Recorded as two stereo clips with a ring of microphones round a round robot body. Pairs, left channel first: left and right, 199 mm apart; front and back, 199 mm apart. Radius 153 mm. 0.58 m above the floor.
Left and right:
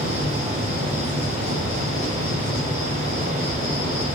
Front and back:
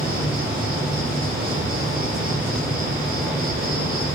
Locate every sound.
0.0 s an insect: 160° left, 3 m